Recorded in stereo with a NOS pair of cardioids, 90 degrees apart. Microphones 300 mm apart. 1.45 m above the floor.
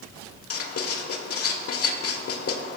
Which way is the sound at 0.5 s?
50° left.